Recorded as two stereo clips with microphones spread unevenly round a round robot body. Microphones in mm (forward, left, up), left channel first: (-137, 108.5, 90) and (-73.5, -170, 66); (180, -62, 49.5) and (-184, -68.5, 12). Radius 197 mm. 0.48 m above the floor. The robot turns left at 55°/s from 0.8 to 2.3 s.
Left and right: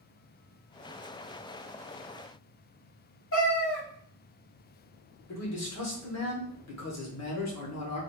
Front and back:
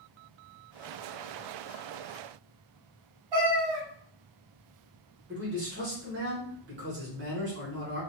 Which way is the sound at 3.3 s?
150° left.